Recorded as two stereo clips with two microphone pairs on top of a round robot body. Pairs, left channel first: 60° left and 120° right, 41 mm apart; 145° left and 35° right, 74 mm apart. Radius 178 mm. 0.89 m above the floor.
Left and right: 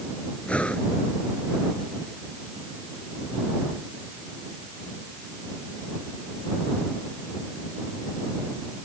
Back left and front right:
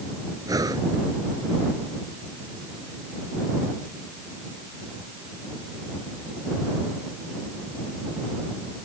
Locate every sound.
0.5 s breathing: 5° right